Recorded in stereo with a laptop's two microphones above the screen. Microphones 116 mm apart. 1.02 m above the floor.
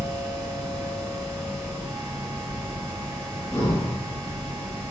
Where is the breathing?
30° left (ahead or behind), 2.5 m.